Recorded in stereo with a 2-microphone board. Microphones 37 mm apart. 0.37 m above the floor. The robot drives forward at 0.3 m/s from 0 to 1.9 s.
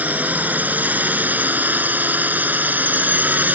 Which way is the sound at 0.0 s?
55° right (ahead or behind).